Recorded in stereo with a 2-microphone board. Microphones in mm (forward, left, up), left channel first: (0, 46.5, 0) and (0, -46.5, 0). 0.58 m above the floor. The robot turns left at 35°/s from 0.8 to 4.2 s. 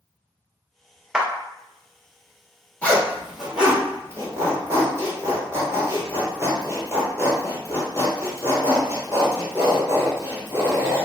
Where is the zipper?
15° left (ahead or behind), 1.2 m; by 11.1 s 30° right (ahead or behind), 1.2 m.